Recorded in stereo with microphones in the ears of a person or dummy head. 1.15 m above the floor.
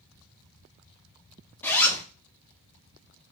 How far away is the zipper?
About 0.5 m.